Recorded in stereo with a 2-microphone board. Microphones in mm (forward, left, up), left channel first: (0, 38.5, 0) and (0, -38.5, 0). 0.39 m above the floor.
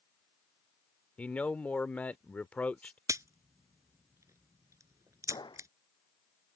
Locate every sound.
1.2 s a man speaking: 20° left (ahead or behind)
3.1 s a crack: 40° right (ahead or behind)
5.3 s a gunshot: 80° left